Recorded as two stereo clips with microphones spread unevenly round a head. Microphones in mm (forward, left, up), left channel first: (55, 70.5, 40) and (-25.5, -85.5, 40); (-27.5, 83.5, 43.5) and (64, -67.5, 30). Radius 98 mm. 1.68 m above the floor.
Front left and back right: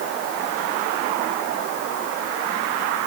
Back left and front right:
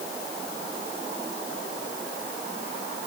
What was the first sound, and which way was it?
Only background noise.